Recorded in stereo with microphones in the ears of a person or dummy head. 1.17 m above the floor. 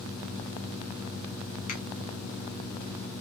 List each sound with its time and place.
1.7 s a finger snap: 40° left (ahead or behind), 1.4 m